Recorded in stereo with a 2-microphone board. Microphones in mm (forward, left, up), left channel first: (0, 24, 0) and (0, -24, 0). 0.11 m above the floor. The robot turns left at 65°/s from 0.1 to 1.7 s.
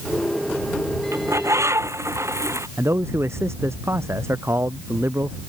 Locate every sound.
1.1 s a bird: 65° right; by 2.7 s 100° right
2.8 s a man speaking: 60° right (ahead or behind)